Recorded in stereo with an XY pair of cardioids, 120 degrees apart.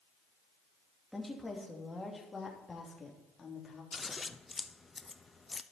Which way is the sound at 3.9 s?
20° left.